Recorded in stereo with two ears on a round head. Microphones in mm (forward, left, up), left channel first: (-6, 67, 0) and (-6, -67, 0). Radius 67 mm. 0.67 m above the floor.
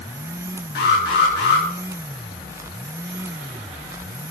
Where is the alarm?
85° left, 7 m.